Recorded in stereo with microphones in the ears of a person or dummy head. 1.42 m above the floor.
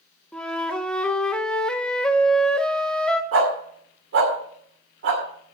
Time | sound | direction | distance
0.3 | a flute | 5° left (ahead or behind) | 0.7 m
3.3 | a dog barking | 65° right (ahead or behind) | 2 m